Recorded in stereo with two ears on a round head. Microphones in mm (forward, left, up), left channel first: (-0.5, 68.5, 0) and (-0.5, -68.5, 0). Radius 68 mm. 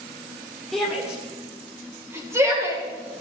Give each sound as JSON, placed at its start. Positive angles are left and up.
{"t": 0.7, "sound": "a shout", "side_deg": 0, "distance_m": 2.0}